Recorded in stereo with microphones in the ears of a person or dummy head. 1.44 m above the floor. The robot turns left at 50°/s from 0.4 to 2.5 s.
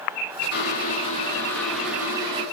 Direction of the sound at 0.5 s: 70° left.